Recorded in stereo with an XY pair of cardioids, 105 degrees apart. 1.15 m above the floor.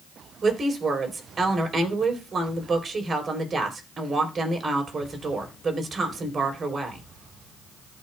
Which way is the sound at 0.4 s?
40° right.